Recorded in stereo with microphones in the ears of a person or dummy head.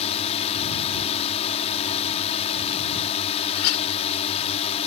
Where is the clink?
80° left.